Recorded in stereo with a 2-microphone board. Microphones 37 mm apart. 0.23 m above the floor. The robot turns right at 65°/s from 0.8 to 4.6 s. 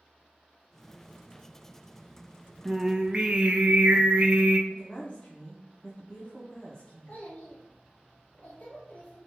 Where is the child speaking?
45° left (ahead or behind), 1.0 m.